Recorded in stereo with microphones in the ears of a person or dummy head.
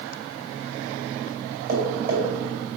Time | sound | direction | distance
1.7 | tapping | 50° right (ahead or behind) | 3 m